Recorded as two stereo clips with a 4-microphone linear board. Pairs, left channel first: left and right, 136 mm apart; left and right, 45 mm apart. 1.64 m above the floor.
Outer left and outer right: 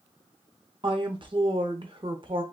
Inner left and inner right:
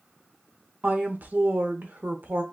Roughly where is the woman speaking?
Right.